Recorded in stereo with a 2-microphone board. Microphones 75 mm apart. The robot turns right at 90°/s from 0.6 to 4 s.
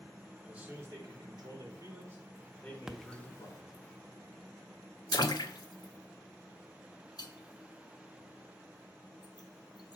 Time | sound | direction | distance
0.4 | a man speaking | 165° right | 3 m
2.9 | a splash | 5° right (ahead or behind) | 0.6 m